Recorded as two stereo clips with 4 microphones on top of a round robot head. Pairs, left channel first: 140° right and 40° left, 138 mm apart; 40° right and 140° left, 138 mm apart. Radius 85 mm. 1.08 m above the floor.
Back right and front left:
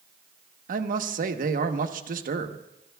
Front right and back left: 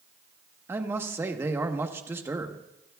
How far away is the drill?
No drill in this recording.